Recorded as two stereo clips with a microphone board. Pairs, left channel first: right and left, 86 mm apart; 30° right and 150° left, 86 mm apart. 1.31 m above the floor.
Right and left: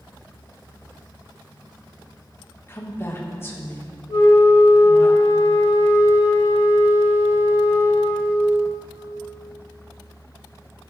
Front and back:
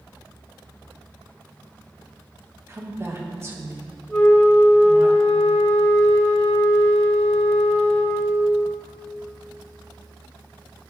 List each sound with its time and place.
2.7 s a woman speaking: 150° right, 1.9 m
4.1 s a flute: 110° right, 3.5 m